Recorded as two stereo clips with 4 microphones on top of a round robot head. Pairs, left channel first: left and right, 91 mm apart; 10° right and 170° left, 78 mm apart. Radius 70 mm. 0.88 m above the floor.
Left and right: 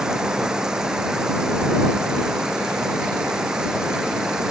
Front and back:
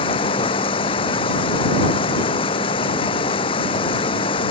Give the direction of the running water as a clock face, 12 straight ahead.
12 o'clock.